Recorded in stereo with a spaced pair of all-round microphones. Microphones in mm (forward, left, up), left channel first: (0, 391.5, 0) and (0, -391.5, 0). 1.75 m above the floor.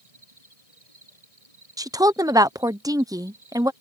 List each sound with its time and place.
0.0 s an insect: 45° right (ahead or behind)
1.8 s a woman speaking: 5° right (ahead or behind)